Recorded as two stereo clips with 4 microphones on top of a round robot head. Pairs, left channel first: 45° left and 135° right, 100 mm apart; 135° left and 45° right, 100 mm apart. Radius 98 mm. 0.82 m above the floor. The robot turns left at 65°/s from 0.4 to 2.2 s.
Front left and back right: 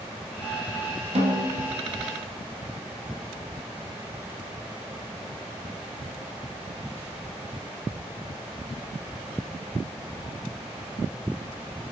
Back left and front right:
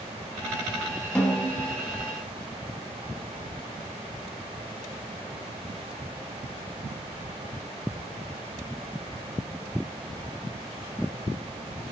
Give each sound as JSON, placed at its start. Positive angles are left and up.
{"t": 1.1, "sound": "a snare drum", "azimuth_deg": -145, "distance_m": 0.9}